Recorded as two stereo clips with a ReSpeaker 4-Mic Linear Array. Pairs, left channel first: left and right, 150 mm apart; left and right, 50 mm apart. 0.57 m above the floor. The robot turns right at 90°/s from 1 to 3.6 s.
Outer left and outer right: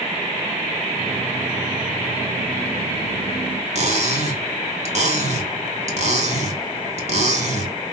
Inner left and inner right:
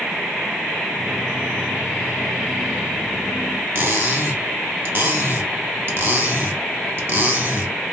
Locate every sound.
3.8 s cutlery clinking: 50° right (ahead or behind), 1.0 m